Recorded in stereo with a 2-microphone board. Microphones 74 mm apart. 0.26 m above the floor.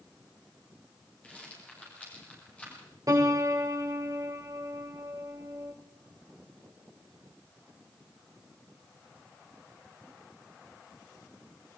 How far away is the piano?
About 5.5 m.